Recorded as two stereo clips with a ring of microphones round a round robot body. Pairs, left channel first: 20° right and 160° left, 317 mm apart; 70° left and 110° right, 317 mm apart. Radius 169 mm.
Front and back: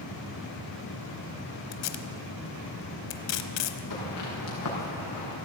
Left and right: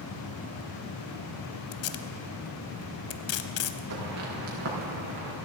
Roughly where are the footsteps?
Ahead right.